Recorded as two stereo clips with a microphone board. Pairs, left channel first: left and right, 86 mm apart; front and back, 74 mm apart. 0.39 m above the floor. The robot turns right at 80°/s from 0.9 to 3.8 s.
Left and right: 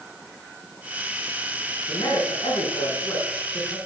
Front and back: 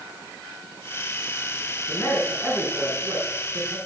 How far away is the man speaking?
About 4 m.